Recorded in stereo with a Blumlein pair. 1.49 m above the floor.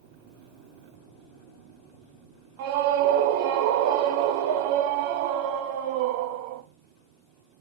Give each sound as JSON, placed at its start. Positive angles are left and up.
{"t": 2.6, "sound": "a scream", "azimuth_deg": -50, "distance_m": 1.1}